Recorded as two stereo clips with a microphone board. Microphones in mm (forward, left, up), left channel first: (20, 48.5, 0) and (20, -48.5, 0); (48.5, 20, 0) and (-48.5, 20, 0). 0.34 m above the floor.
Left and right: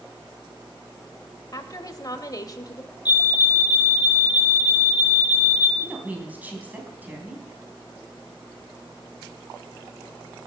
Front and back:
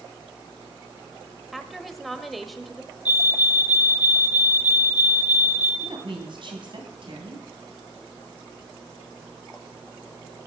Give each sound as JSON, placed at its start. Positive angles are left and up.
{"t": 1.5, "sound": "a woman speaking", "azimuth_deg": 90, "distance_m": 1.1}
{"t": 3.0, "sound": "a fire alarm", "azimuth_deg": 115, "distance_m": 3.0}
{"t": 5.8, "sound": "a woman speaking", "azimuth_deg": -160, "distance_m": 3.0}